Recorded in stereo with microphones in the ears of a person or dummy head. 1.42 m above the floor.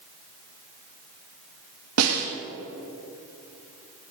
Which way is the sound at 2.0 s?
85° right.